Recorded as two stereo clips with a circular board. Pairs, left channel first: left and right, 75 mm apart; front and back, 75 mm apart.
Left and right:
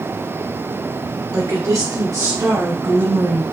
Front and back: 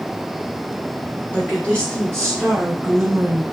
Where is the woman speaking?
65° right, 1.9 m; by 3.4 s 125° right, 1.3 m.